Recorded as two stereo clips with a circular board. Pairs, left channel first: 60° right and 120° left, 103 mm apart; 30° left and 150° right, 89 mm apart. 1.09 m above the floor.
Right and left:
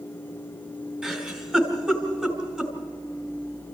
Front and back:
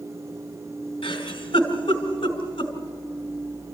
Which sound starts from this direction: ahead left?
A giggle, at 1.0 s.